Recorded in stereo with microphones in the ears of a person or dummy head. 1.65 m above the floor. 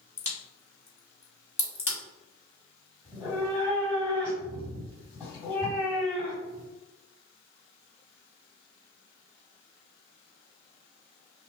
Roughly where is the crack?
Centre.